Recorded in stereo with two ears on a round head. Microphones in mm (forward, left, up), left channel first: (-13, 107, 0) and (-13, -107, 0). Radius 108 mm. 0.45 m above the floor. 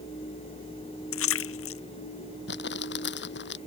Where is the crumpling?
50° left (ahead or behind).